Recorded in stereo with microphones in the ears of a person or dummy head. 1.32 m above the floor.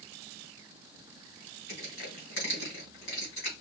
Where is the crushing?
65° left (ahead or behind), 3 m.